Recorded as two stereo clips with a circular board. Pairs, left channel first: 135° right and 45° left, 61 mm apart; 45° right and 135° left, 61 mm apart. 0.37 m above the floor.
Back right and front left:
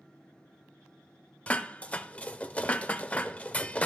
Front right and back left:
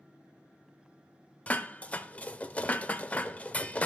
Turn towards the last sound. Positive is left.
turn(degrees=-85)